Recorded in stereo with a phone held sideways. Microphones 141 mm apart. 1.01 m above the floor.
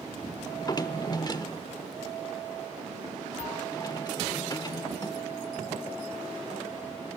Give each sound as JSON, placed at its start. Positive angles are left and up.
{"t": 0.5, "sound": "a drawer", "side_deg": 30, "distance_m": 0.7}